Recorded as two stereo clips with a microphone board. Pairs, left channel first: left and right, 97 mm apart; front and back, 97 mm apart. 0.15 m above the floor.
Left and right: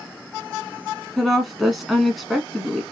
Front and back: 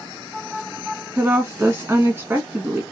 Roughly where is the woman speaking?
Behind.